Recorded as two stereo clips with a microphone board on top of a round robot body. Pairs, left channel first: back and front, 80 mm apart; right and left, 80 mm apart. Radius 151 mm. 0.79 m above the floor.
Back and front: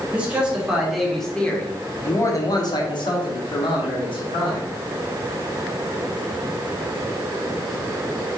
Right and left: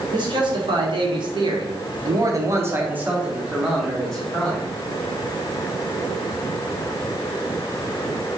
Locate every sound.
0.1 s a man speaking: 75° left, 1.8 m; by 4.7 s 170° right, 2 m